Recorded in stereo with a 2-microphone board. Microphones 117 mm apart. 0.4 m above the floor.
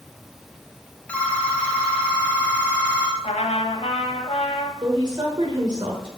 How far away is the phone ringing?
About 1.2 m.